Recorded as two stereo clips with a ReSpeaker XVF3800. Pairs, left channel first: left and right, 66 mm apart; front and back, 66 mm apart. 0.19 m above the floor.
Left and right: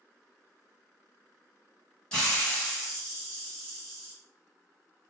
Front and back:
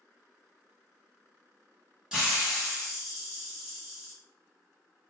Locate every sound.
2.1 s a hiss: 135° left, 1.2 m